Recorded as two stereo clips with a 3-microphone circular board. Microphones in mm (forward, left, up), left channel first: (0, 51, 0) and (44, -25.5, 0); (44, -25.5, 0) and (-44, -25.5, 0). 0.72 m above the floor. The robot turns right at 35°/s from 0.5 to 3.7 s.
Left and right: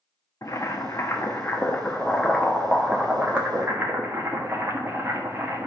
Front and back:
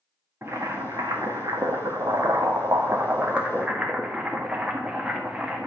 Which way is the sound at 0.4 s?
140° left.